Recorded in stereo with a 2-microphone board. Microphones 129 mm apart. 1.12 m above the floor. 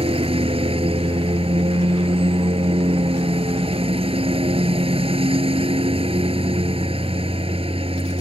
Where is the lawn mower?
45° right (ahead or behind).